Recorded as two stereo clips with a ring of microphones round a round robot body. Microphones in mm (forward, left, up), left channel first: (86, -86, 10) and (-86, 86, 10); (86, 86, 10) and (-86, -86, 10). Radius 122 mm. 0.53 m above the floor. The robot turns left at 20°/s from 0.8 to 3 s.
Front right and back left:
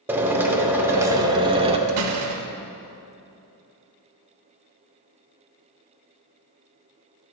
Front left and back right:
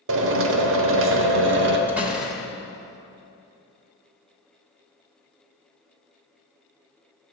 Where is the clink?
I don't hear a clink.